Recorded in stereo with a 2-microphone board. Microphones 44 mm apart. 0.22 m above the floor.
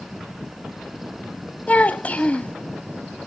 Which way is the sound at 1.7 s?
30° left (ahead or behind).